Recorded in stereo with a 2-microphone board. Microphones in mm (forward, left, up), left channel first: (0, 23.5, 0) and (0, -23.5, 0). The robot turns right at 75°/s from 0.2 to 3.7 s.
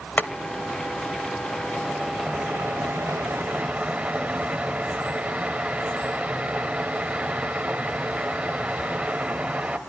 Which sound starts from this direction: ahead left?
Boiling, at 0.2 s.